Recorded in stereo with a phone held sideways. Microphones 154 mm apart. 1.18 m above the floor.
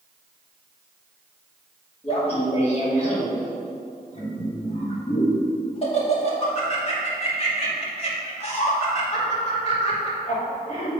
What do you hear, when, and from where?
2.0 s laughter: 40° left (ahead or behind), 2.5 m